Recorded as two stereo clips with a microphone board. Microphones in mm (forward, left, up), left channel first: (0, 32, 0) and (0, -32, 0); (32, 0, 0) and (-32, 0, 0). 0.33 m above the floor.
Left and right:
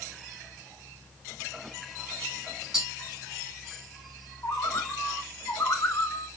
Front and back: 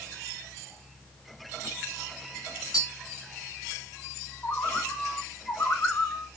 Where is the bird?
50° left, 1.7 m.